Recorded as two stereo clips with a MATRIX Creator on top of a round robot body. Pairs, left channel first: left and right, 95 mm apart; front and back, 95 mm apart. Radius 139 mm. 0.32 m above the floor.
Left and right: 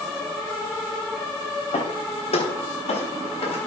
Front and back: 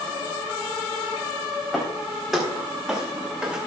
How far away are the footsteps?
About 7.5 m.